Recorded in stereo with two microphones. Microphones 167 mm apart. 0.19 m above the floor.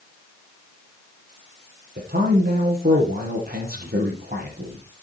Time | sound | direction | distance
2.0 | a man speaking | 65° right (ahead or behind) | 4.5 m